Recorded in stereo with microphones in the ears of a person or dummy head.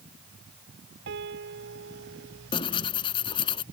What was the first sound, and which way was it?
A piano, 60° right (ahead or behind).